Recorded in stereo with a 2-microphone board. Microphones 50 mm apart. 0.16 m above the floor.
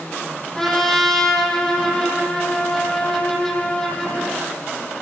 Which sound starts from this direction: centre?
A trumpet, at 0.6 s.